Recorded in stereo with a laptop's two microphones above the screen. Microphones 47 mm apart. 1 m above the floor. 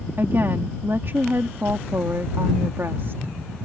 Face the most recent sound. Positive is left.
turn(degrees=-60)  # may be behind; listen again after turning